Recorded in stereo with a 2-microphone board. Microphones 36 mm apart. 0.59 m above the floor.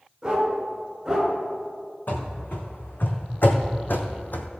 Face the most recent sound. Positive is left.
turn(degrees=60)  # may be behind; listen again after turning